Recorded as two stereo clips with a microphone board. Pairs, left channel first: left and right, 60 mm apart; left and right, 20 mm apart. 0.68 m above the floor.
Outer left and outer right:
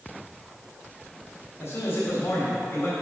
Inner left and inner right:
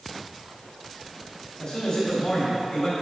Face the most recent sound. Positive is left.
turn(degrees=45)  # may be behind; listen again after turning